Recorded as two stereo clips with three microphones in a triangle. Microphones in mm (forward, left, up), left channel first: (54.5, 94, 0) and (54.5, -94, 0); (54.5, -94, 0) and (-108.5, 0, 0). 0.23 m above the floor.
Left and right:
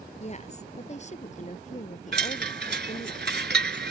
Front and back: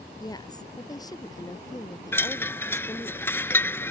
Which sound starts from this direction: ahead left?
A woman speaking, at 0.2 s.